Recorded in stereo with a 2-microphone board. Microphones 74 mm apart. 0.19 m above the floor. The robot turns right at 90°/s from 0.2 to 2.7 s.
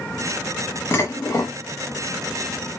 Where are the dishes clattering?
55° left, 0.9 m; by 1.6 s 115° left, 0.9 m.